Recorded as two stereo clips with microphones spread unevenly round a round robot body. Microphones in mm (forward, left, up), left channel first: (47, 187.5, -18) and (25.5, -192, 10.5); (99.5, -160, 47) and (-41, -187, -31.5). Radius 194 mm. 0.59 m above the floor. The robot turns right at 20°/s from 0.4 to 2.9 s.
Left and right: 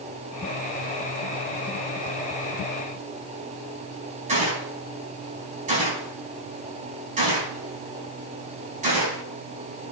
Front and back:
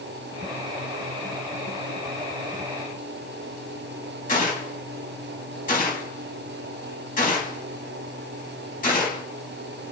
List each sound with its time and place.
4.3 s a gunshot: 20° right, 5 m